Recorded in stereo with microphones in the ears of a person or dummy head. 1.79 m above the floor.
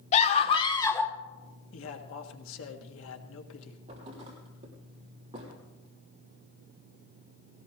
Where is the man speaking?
80° left, 1.7 m.